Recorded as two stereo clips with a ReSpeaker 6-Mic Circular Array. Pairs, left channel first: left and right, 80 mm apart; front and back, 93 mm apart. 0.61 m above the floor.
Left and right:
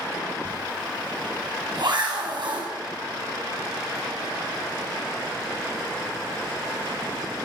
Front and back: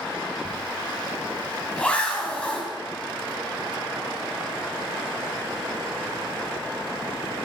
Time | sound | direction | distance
0.5 | a zipper | 75° right | 4 m